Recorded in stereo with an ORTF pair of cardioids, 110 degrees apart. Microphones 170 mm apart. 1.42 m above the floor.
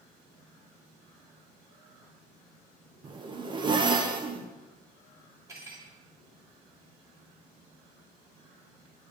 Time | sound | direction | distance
3.0 | a zipper | 25° right | 0.8 m
5.5 | cutlery clinking | 15° right | 2 m